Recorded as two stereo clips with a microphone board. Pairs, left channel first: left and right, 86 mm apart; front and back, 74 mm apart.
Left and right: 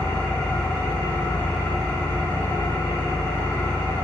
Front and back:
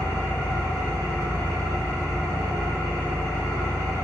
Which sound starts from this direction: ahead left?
An engine running, at 0.0 s.